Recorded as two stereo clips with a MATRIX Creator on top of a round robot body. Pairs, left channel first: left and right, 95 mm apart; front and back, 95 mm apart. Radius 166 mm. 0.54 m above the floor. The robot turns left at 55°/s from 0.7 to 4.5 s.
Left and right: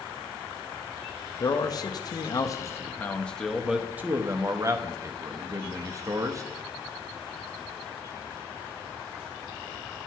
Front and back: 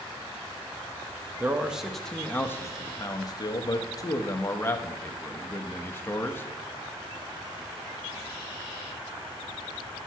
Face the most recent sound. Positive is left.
turn(degrees=-55)